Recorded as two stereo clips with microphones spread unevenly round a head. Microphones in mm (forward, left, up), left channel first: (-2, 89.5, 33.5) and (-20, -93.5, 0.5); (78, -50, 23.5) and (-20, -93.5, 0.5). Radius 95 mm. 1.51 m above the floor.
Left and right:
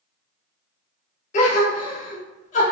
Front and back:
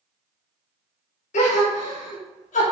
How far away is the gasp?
About 0.5 m.